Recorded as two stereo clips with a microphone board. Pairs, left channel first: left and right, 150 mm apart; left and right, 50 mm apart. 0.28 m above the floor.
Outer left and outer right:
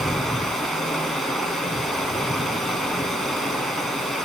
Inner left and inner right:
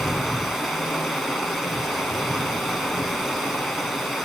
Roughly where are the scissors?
I don't hear scissors.